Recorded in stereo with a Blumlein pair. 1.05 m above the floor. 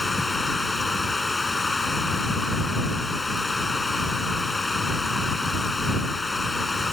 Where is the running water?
10° left.